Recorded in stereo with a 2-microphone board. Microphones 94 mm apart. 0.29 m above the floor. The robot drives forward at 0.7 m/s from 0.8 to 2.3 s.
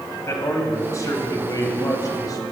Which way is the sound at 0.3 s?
35° left (ahead or behind).